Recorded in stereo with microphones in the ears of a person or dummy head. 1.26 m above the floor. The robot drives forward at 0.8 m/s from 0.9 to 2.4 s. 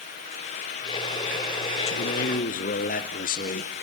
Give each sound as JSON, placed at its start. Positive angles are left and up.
{"t": 1.9, "sound": "a man speaking", "side_deg": 65, "distance_m": 0.7}